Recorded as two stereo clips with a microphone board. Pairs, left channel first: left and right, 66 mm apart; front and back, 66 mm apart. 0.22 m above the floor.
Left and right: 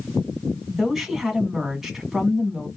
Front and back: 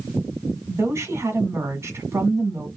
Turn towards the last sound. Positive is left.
turn(degrees=-175)